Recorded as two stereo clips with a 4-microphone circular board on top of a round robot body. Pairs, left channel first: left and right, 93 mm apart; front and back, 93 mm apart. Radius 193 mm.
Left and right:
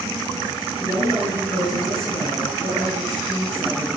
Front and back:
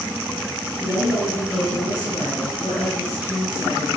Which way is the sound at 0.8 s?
30° left.